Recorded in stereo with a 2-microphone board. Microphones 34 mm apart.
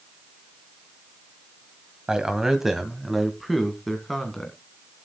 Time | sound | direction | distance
2.1 | a man speaking | 20° right (ahead or behind) | 1.5 m